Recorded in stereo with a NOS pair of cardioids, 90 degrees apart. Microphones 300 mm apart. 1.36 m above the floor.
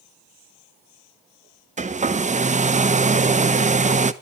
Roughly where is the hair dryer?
Ahead right.